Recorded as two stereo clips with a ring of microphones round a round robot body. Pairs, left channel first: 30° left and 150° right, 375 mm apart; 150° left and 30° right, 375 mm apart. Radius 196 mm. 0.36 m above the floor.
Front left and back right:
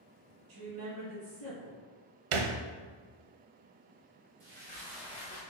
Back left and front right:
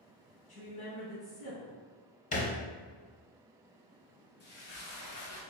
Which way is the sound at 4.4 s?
155° left.